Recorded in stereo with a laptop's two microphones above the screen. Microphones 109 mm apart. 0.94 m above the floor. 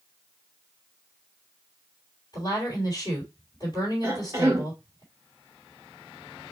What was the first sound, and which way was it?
A woman speaking, 45° left (ahead or behind).